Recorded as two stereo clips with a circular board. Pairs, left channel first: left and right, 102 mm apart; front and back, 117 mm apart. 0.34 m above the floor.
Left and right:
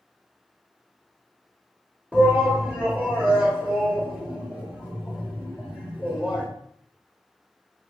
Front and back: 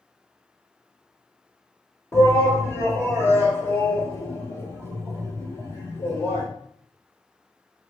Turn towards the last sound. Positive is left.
turn(degrees=-25)